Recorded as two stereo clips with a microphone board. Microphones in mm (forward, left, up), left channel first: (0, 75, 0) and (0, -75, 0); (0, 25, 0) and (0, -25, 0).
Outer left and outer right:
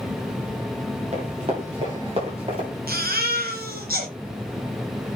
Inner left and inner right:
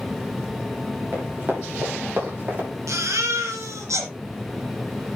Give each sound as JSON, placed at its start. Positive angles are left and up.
{"t": 1.1, "sound": "running footsteps", "side_deg": -40, "distance_m": 8.0}
{"t": 2.9, "sound": "a baby crying", "side_deg": -70, "distance_m": 3.0}